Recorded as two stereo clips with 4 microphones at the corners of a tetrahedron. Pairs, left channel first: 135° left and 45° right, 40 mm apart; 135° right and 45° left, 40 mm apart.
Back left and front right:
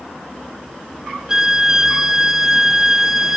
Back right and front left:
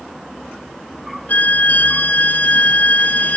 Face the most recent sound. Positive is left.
turn(degrees=-115)